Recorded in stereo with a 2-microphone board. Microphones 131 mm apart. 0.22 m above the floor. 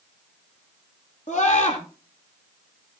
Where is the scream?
65° left (ahead or behind), 6 m.